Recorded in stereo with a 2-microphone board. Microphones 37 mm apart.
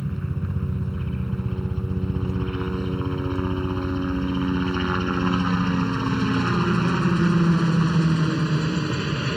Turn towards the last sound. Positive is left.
turn(degrees=-20)  # may be behind; listen again after turning